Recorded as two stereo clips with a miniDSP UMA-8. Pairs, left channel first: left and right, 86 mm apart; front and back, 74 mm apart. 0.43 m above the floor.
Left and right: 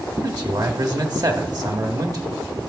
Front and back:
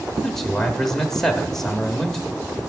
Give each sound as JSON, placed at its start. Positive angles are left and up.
{"t": 0.2, "sound": "a man speaking", "azimuth_deg": -80, "distance_m": 1.2}